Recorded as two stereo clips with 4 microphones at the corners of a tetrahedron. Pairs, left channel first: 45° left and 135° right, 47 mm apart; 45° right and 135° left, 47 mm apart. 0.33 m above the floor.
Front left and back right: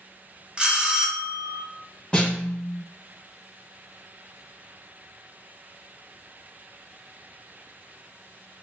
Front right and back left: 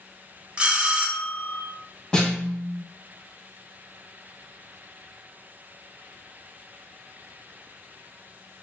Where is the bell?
Straight behind, 0.6 m.